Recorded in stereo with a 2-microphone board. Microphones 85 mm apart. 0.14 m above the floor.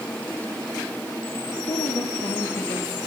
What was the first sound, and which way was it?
A woman speaking, 70° left (ahead or behind).